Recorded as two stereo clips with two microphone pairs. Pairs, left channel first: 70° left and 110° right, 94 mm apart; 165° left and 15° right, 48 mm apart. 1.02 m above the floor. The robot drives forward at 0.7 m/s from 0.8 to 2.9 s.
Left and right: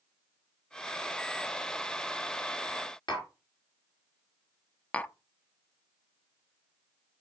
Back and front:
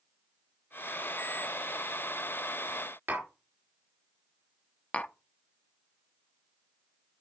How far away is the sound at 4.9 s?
About 0.5 m.